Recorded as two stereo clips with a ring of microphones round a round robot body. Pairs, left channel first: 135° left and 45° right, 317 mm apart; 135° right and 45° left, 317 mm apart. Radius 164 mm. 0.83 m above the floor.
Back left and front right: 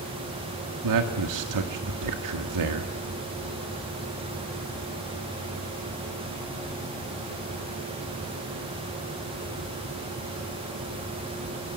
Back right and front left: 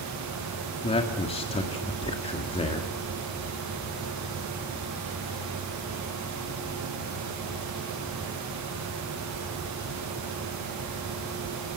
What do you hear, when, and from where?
0.8 s a man speaking: 65° right, 1.8 m